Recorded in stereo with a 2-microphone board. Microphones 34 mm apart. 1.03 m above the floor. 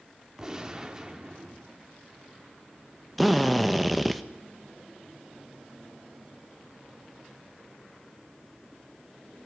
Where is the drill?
Centre (ahead or behind), 1.2 m.